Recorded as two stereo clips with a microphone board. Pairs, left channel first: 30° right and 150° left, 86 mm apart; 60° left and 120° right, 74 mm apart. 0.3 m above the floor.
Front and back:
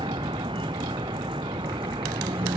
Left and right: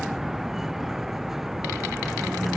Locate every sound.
0.0 s a vehicle: 155° left